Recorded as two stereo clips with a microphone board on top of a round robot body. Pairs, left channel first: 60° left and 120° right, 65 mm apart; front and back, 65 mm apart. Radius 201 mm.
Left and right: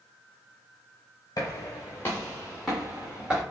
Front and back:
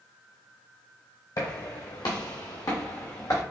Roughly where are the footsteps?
Ahead left.